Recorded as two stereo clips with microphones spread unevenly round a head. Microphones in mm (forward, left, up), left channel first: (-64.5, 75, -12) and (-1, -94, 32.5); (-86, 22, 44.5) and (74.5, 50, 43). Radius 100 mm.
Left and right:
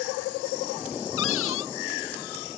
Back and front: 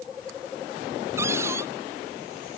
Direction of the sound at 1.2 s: 85° left.